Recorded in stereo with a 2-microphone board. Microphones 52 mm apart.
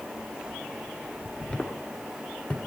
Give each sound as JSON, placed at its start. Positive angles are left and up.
{"t": 1.5, "sound": "footsteps", "side_deg": 20, "distance_m": 1.2}